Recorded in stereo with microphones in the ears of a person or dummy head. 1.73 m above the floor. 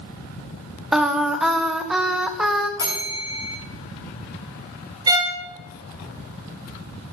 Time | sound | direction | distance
0.9 | singing | 5° right (ahead or behind) | 1.3 m
2.8 | a bell | 20° left (ahead or behind) | 5.5 m
5.1 | a violin | 25° right (ahead or behind) | 1.3 m